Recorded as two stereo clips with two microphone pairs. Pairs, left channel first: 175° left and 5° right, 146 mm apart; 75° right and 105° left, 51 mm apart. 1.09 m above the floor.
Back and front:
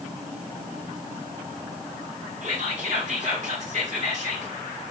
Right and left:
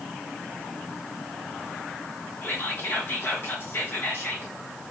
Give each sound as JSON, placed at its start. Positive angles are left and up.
{"t": 2.4, "sound": "whispering", "azimuth_deg": -40, "distance_m": 1.6}